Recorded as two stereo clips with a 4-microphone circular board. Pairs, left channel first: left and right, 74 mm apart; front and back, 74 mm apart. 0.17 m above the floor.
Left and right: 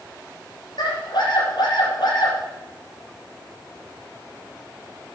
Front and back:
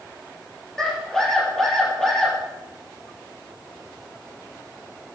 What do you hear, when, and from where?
0.8 s a scream: 85° left, 4 m